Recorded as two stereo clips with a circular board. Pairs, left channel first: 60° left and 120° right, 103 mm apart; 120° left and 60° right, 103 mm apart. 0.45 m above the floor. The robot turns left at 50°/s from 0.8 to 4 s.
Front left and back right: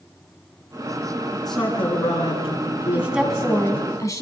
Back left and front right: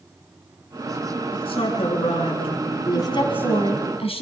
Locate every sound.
1.3 s a man speaking: 155° left, 6.5 m; by 3.9 s 25° left, 6.5 m
2.9 s a woman speaking: 170° left, 4 m; by 4.2 s 115° left, 4 m